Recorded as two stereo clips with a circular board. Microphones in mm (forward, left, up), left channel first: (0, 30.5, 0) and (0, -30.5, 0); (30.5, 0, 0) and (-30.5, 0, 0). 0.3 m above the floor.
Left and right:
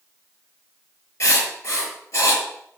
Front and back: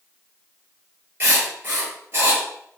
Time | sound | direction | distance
1.2 | writing | 125° left | 7 m